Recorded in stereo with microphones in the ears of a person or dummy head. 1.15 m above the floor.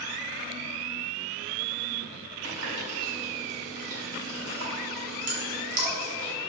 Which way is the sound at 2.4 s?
85° right.